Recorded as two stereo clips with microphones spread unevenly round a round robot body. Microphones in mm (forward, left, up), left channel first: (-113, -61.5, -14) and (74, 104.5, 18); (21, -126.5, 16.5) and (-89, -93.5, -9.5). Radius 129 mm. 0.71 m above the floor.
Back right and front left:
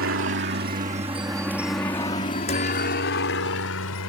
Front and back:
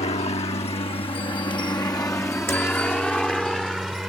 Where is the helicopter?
20° left; by 4.1 s 110° right.